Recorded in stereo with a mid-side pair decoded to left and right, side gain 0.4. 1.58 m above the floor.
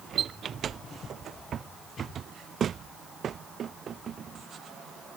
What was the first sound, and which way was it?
Only background noise.